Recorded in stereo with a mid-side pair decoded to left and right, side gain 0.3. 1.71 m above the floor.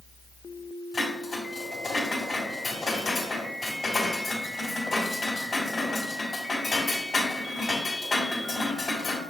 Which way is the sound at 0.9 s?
50° left.